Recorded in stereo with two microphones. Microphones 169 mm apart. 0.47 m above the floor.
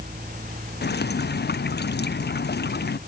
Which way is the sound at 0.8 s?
80° left.